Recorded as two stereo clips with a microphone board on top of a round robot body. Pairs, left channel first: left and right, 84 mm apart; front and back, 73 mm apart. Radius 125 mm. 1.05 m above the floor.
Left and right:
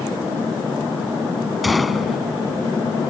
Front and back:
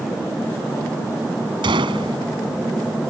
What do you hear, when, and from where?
1.6 s a gunshot: straight behind